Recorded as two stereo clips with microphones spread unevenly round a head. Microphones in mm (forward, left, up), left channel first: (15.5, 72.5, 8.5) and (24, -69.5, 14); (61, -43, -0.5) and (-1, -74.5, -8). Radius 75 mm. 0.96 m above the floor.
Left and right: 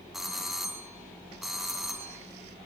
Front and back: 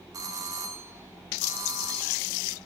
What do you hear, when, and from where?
0.1 s a doorbell: 175° right, 1.9 m